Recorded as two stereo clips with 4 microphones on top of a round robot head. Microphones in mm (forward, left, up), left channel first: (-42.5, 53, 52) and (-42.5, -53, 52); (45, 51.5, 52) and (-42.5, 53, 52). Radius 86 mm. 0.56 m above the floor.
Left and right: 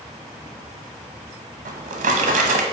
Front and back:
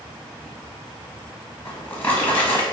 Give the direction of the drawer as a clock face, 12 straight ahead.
3 o'clock.